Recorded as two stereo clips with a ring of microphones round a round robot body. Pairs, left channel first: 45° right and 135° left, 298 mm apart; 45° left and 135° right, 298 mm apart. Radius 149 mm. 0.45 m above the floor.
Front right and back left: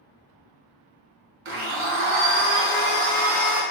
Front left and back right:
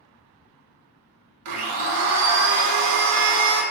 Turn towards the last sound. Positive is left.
turn(degrees=-175)